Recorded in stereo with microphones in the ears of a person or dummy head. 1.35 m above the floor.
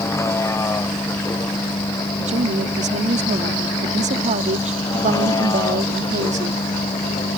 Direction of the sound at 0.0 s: 15° left (ahead or behind).